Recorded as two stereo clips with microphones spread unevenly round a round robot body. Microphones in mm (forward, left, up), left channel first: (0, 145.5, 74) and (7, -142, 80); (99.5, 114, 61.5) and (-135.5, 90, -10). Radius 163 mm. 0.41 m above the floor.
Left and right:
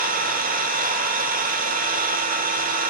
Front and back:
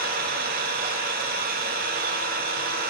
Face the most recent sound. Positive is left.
turn(degrees=-145)